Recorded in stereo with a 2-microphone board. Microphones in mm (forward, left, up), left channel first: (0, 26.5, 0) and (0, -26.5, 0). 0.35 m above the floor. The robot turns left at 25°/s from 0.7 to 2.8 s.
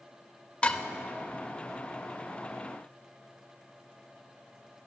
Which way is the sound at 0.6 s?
25° left (ahead or behind).